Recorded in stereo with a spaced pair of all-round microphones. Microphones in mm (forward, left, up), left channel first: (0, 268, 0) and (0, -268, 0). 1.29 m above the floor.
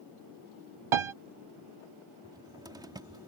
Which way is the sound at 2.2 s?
5° right (ahead or behind).